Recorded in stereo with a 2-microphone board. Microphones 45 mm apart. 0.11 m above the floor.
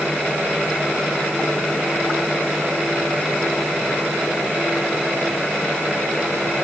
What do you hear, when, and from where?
Only background noise.